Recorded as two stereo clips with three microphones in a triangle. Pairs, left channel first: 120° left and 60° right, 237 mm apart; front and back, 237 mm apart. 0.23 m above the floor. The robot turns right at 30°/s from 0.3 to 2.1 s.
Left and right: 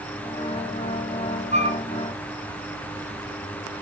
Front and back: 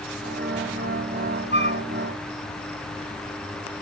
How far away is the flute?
About 1.4 m.